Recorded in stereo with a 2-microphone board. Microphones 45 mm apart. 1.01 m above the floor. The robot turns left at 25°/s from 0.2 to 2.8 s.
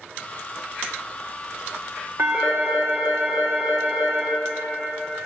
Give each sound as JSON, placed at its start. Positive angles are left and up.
{"t": 2.2, "sound": "a phone ringing", "side_deg": -55, "distance_m": 1.5}